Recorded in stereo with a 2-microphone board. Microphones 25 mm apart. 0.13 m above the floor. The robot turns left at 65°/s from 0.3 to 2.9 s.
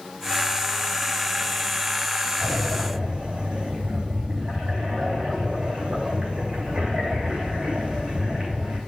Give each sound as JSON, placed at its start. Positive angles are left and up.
{"t": 2.4, "sound": "breathing", "azimuth_deg": -90, "distance_m": 3.0}